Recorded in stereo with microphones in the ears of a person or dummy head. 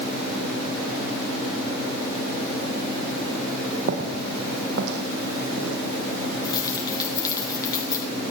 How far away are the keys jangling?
About 4.5 m.